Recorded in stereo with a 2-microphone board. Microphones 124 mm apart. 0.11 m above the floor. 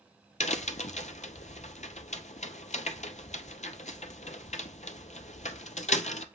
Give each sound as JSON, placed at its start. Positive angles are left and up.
{"t": 0.4, "sound": "a crack", "side_deg": 75, "distance_m": 0.5}